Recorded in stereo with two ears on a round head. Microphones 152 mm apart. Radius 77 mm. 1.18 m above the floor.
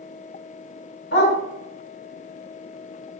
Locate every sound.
1.1 s a dog barking: 60° left (ahead or behind), 1.3 m